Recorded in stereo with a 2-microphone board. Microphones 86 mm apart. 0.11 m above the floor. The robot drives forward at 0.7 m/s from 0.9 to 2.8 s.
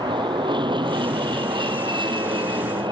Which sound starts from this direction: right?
An aircraft, at 0.0 s.